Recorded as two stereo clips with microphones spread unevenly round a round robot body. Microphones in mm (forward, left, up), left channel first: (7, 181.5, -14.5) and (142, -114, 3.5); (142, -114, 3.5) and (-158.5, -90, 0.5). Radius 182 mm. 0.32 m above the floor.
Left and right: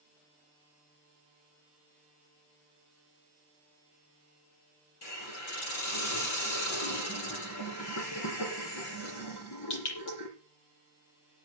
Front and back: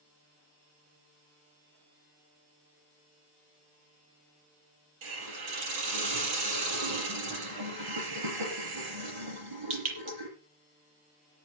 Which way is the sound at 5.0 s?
160° left.